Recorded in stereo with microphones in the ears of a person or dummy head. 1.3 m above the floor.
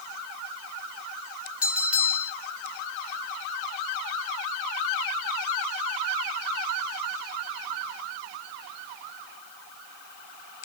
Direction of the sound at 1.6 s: Centre (ahead or behind).